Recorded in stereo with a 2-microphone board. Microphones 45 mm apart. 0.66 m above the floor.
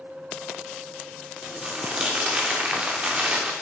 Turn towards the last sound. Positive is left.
turn(degrees=-25)  # may be behind; listen again after turning